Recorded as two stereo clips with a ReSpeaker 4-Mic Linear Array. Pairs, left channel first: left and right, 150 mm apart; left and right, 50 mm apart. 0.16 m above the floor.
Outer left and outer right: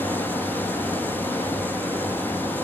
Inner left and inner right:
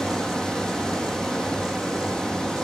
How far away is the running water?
About 0.9 m.